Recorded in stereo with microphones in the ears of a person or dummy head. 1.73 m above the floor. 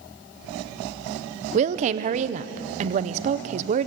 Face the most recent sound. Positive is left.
turn(degrees=-40)  # may be behind; listen again after turning